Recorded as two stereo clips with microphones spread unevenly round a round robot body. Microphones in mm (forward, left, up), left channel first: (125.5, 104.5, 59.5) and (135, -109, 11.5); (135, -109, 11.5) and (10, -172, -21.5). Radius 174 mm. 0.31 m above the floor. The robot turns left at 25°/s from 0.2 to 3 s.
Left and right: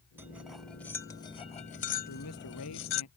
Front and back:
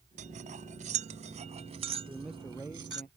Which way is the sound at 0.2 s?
160° right.